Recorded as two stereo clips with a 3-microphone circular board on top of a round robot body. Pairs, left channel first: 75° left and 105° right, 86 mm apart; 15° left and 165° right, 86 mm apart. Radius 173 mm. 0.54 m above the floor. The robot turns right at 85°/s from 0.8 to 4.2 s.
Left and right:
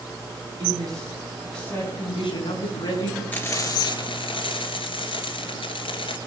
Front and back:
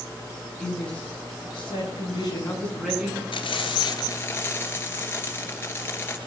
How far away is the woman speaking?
About 8 m.